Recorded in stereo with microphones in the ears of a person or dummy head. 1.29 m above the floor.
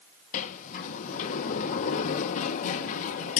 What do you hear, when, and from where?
0.3 s a sliding door: 45° left (ahead or behind), 0.7 m